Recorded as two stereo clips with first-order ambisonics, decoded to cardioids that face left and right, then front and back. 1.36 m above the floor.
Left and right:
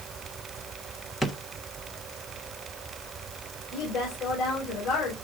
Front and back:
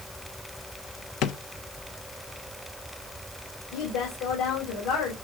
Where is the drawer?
10° left, 0.9 m.